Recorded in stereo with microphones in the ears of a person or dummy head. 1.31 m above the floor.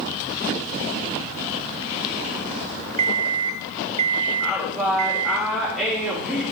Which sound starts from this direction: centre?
A woman speaking, at 4.4 s.